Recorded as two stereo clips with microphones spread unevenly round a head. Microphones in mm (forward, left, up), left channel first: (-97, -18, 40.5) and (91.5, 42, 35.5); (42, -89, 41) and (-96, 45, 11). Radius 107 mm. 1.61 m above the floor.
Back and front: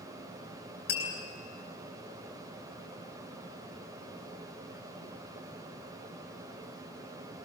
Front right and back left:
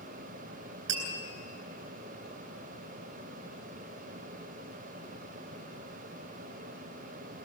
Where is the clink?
I don't hear a clink.